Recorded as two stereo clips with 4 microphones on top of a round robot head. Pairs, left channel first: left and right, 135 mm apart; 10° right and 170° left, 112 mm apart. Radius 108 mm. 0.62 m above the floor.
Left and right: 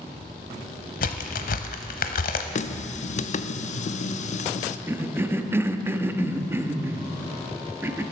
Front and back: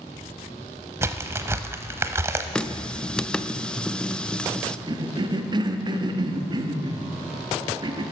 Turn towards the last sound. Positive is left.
turn(degrees=-160)